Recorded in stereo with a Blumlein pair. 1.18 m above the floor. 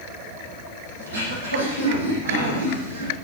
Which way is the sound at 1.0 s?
70° right.